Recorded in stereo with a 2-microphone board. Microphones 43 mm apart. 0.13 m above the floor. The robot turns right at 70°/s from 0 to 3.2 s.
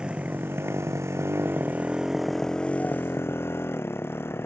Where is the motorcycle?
160° right; by 4.5 s 65° left.